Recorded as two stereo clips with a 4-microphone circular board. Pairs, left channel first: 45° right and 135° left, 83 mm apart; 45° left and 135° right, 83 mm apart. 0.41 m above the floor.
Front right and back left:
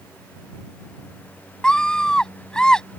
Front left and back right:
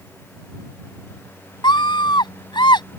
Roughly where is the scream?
Ahead left.